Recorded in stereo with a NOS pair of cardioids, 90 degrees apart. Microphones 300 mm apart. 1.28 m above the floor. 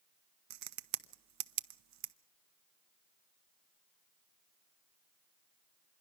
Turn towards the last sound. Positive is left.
turn(degrees=-70)